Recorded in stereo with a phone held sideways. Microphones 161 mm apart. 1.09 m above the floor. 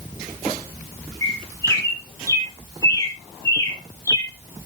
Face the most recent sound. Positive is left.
turn(degrees=20)  # may be behind; listen again after turning